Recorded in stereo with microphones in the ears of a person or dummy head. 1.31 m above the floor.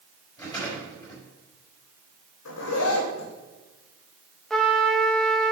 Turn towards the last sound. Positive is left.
turn(degrees=5)  # may be behind; listen again after turning